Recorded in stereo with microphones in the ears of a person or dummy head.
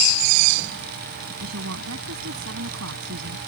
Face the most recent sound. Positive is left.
turn(degrees=-90)